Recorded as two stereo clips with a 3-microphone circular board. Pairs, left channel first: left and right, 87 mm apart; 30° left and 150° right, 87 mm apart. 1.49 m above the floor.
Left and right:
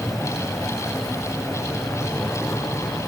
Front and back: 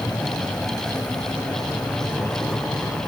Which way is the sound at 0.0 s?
Straight ahead.